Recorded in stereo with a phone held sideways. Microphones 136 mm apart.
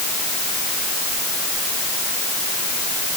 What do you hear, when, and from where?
Only background noise.